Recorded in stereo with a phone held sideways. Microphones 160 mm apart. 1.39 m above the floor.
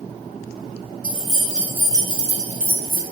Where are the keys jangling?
10° left (ahead or behind), 1.0 m; by 3.0 s 70° right (ahead or behind), 0.8 m.